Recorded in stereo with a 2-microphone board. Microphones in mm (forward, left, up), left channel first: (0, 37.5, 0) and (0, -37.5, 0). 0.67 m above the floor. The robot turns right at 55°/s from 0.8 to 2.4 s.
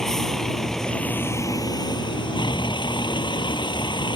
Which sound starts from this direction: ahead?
A vehicle, at 0.0 s.